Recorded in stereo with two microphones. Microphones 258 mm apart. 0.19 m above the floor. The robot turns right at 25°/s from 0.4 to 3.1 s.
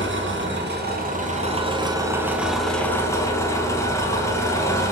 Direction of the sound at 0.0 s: 55° right.